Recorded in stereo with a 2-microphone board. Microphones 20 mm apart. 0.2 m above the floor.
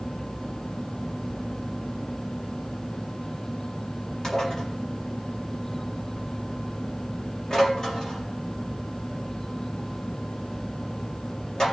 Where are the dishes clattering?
35° left (ahead or behind), 4 m.